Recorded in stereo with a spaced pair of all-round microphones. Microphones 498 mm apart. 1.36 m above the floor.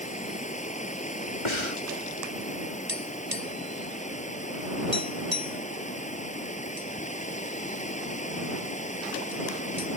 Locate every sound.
0.0 s running water: 15° left (ahead or behind)
1.4 s breathing: 70° left (ahead or behind)
2.9 s tapping: 45° right (ahead or behind)